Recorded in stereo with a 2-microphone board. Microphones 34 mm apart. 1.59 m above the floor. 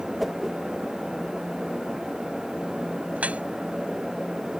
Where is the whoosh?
Centre (ahead or behind).